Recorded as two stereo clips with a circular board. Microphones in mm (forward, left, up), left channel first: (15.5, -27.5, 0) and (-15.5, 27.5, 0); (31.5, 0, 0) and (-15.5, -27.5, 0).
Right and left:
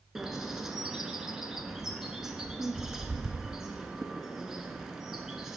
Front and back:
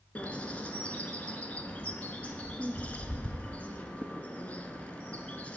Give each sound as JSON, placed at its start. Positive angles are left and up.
{"t": 0.1, "sound": "a bird", "azimuth_deg": 45, "distance_m": 0.8}